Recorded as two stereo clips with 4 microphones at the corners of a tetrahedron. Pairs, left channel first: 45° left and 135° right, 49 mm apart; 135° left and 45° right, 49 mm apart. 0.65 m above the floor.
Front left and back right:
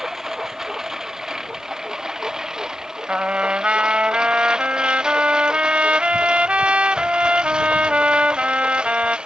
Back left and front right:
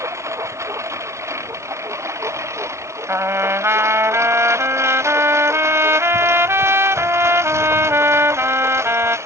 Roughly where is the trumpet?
Right.